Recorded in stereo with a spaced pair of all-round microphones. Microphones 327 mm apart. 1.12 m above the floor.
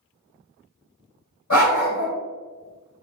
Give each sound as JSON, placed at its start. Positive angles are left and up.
{"t": 1.5, "sound": "a dog barking", "side_deg": 60, "distance_m": 1.6}